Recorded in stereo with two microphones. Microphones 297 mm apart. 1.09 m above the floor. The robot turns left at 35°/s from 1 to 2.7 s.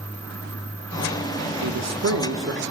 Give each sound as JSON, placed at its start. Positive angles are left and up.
{"t": 1.6, "sound": "a man speaking", "azimuth_deg": -105, "distance_m": 0.8}